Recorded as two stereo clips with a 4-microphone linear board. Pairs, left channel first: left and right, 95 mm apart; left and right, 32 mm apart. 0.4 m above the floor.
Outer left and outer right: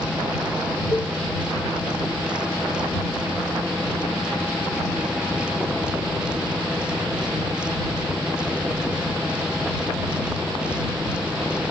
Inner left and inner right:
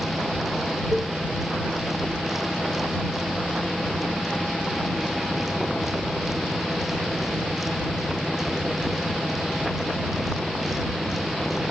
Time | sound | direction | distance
0.9 | a cowbell | 25° left (ahead or behind) | ?